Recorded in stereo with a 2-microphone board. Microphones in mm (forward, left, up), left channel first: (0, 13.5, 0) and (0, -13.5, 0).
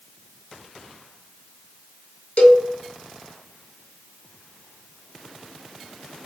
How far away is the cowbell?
About 0.6 m.